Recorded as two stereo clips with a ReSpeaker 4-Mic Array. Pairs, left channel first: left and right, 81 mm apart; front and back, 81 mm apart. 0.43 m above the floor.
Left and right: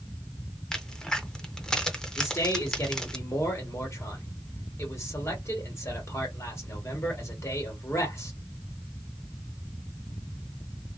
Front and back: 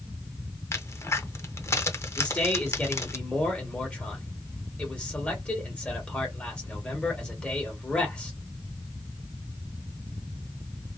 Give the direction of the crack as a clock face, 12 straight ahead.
12 o'clock.